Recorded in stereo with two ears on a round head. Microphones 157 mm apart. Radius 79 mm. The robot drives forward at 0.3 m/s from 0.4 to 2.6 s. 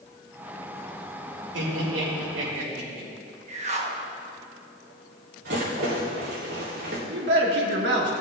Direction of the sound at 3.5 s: 40° right (ahead or behind).